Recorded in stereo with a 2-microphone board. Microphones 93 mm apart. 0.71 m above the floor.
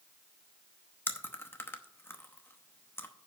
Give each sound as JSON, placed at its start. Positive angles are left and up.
{"t": 1.1, "sound": "chewing", "side_deg": 25, "distance_m": 0.9}